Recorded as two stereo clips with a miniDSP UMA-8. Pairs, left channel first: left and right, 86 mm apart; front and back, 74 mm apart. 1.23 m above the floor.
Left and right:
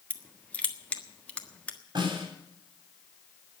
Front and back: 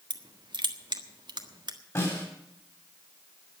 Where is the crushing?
165° left, 1.5 m.